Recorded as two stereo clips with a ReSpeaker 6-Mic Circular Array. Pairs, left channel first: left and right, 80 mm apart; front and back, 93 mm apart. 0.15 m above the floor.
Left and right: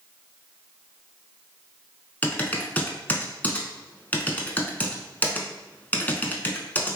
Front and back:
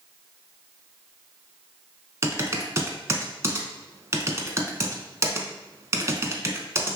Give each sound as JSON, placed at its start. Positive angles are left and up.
{"t": 2.2, "sound": "typing on a keyboard", "azimuth_deg": 145, "distance_m": 0.5}